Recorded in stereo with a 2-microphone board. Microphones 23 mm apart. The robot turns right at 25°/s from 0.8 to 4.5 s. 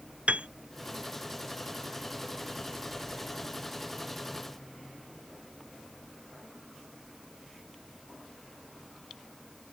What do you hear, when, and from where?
0.3 s a piano: 70° right (ahead or behind)